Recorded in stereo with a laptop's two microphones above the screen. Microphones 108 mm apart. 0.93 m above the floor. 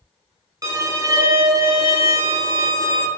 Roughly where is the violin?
Right.